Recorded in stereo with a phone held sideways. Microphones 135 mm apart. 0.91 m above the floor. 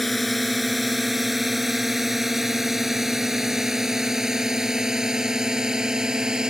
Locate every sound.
0.0 s a drone: centre (ahead or behind); by 6.5 s 5° right (ahead or behind)